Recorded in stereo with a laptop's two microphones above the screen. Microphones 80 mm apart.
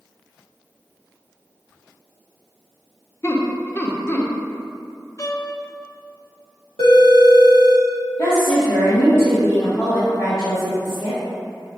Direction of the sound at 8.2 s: 65° left (ahead or behind).